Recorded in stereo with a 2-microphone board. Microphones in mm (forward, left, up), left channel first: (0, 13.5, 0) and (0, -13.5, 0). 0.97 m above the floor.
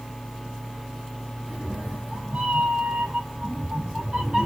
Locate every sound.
1.5 s a cat meowing: 65° right (ahead or behind), 1.8 m; by 4.5 s 30° right (ahead or behind), 1.4 m